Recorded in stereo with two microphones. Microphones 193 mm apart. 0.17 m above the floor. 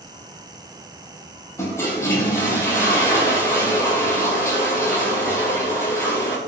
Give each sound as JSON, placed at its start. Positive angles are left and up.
{"t": 1.6, "sound": "a toilet flushing", "side_deg": 15, "distance_m": 2.5}